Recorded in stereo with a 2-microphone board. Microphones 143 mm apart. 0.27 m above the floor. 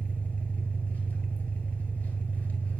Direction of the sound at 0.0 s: 10° left (ahead or behind).